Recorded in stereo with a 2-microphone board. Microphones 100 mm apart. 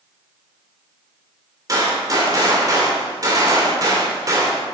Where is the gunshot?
35° right (ahead or behind), 2.5 m.